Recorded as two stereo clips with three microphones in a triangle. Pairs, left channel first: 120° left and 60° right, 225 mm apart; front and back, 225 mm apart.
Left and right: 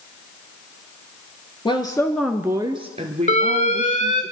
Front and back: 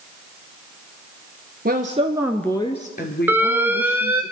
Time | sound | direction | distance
1.6 | a woman speaking | straight behind | 1.5 m
3.3 | an alarm | 105° left | 0.9 m